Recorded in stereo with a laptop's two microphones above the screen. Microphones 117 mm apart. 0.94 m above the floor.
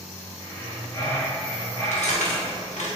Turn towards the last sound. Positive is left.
turn(degrees=85)